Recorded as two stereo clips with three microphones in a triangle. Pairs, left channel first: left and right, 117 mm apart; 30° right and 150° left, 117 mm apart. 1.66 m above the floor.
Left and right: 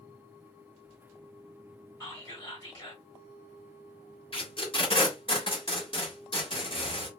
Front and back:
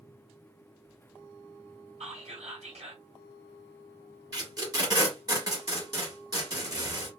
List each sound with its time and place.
2.0 s whispering: 135° left, 1.8 m
4.3 s tape being pulled: 105° left, 1.7 m